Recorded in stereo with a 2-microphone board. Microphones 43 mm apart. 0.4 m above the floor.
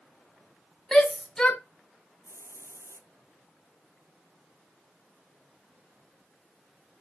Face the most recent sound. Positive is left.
turn(degrees=-65)  # may be behind; listen again after turning